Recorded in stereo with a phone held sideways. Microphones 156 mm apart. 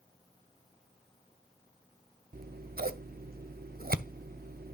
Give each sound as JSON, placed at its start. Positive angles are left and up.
{"t": 2.3, "sound": "scissors", "side_deg": -75, "distance_m": 0.6}